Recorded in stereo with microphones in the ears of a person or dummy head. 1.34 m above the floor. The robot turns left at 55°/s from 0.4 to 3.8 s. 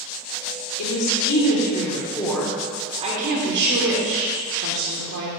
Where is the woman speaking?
85° left, 1.2 m; by 5.3 s 80° right, 1.2 m.